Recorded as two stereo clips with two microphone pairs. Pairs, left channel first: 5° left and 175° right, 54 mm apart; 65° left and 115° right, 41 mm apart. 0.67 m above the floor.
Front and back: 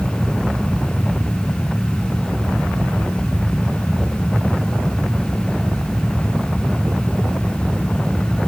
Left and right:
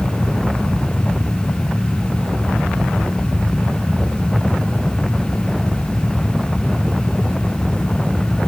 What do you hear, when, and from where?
Only background noise.